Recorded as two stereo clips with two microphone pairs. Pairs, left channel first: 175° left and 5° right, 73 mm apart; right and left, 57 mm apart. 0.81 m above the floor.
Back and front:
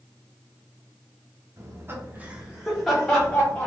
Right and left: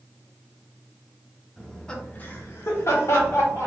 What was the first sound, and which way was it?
Laughter, 5° left.